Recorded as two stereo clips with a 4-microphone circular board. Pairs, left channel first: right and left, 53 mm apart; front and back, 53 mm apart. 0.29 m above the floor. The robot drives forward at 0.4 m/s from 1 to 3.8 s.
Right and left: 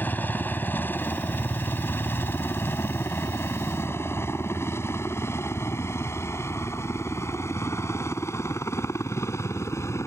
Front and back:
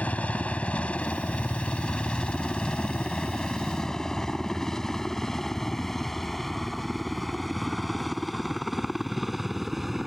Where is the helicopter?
50° right; by 10.1 s 95° right.